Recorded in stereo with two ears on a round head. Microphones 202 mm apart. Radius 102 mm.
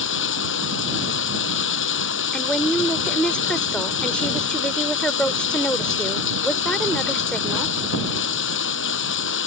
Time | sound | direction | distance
0.0 | running water | 60° left (ahead or behind) | ?
2.3 | a woman speaking | 5° left (ahead or behind) | ?